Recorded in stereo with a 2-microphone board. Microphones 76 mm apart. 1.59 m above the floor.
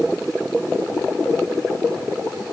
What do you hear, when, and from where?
Only background noise.